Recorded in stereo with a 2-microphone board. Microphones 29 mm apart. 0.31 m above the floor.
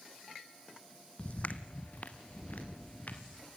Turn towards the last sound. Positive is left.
turn(degrees=70)  # may be behind; listen again after turning